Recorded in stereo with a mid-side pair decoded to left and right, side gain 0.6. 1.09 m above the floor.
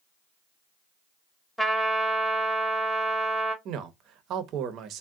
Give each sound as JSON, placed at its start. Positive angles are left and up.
{"t": 1.6, "sound": "a trumpet", "azimuth_deg": 0, "distance_m": 0.8}
{"t": 3.6, "sound": "a man speaking", "azimuth_deg": -60, "distance_m": 0.6}